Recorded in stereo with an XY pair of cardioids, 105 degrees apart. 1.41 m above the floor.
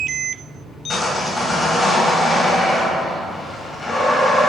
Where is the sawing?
35° left, 1.7 m.